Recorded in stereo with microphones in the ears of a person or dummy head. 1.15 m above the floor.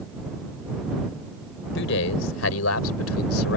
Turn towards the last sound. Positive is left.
turn(degrees=85)